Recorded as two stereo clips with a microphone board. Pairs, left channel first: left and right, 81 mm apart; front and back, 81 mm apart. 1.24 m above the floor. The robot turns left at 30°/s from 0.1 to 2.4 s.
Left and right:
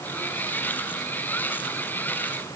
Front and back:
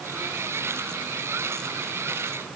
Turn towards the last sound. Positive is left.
No sound to turn to.